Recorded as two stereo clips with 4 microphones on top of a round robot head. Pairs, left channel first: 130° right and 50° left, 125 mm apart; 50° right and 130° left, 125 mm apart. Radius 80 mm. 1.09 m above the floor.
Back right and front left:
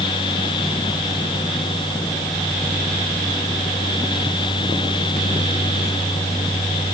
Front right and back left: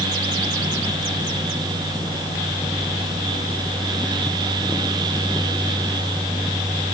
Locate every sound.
Only background noise.